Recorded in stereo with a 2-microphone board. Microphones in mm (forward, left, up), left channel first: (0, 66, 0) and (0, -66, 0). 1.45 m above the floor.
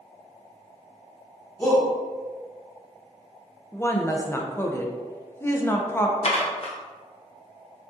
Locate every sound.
1.6 s a shout: 15° left (ahead or behind), 1.7 m
3.7 s a woman speaking: 20° left (ahead or behind), 0.7 m
6.2 s dishes clattering: 55° left (ahead or behind), 0.8 m